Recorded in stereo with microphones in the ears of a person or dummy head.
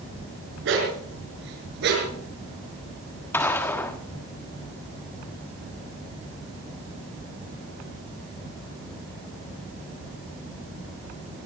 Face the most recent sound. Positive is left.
turn(degrees=15)  # may be behind; listen again after turning